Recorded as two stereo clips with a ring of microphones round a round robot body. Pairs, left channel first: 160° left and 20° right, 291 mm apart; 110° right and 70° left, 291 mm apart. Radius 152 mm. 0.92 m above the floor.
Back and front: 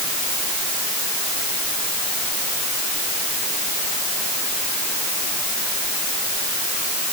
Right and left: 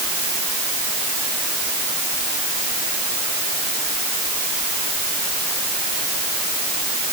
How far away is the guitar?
I don't hear a guitar.